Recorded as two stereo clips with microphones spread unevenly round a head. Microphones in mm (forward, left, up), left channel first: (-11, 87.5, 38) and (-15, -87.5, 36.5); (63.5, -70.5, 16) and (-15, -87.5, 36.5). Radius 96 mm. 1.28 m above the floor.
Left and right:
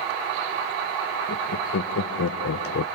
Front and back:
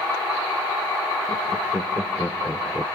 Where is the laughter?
75° left, 1.2 m; by 2.9 s 115° left, 0.7 m.